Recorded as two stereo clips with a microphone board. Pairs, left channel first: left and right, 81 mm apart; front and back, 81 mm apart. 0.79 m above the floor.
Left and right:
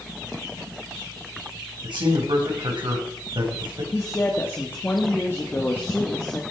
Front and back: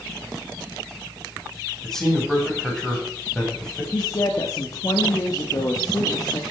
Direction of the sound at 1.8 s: 85° right.